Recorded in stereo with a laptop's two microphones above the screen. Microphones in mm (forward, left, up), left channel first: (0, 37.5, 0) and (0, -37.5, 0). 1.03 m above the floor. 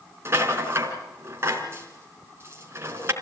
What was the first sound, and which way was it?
A rattle, 35° right (ahead or behind).